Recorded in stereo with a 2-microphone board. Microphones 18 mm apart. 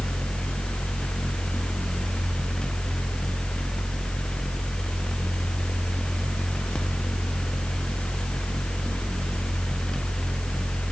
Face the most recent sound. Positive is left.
No sound to turn to.